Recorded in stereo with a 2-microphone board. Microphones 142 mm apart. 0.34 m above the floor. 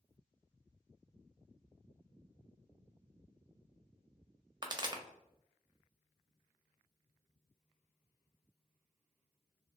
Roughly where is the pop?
Right.